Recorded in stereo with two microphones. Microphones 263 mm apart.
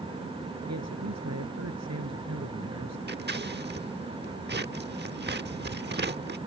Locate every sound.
0.7 s a man speaking: 80° right
3.1 s scissors: 40° right (ahead or behind)